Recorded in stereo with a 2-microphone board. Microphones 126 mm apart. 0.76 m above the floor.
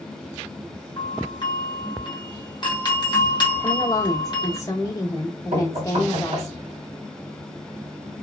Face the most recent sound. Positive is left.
turn(degrees=-70)  # may be behind; listen again after turning